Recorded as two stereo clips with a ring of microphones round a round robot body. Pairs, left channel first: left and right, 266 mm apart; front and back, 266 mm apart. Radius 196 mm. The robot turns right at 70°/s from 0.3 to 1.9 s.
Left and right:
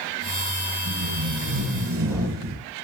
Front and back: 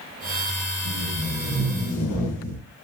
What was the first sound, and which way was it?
Tape being pulled, 130° right.